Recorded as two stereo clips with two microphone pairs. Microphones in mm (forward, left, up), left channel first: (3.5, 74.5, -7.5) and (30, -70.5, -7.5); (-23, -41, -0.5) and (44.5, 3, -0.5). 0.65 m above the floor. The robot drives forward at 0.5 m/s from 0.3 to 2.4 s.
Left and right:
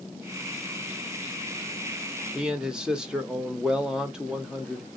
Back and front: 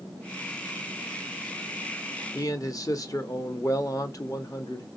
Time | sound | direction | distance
2.4 | a man speaking | 160° right | 0.7 m